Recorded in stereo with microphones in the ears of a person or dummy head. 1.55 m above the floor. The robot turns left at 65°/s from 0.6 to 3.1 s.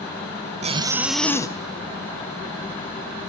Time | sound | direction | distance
0.6 | a zipper | 145° right | 0.6 m